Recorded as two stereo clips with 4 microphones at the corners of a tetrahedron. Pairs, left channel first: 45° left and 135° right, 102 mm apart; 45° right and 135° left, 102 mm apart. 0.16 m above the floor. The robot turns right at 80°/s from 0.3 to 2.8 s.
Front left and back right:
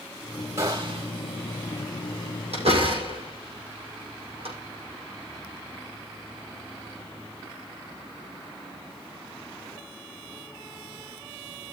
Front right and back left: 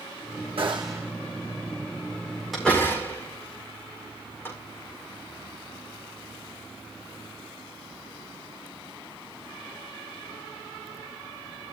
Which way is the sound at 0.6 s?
165° left.